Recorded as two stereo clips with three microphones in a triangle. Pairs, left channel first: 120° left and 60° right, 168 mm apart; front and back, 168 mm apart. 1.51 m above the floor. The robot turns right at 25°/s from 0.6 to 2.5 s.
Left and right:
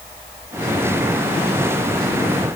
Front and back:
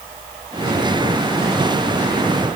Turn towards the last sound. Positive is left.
No sound to turn to.